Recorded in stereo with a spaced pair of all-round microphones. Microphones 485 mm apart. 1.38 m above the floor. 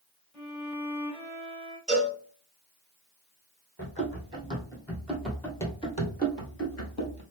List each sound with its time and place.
0.3 s a violin: 5° left (ahead or behind), 2.5 m
1.9 s a cowbell: 30° right (ahead or behind), 2.5 m
3.8 s running footsteps: 15° right (ahead or behind), 2.5 m; by 7.2 s 35° left (ahead or behind), 1.7 m